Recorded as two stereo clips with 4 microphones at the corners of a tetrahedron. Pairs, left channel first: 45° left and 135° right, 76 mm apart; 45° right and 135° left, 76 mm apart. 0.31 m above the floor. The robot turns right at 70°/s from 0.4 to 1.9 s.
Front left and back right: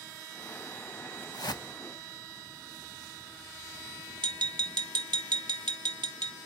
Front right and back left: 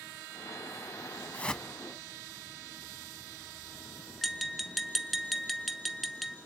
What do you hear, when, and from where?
1.3 s a whoosh: 20° left, 0.8 m; by 1.7 s 40° left, 0.8 m
4.2 s tapping: 135° right, 0.9 m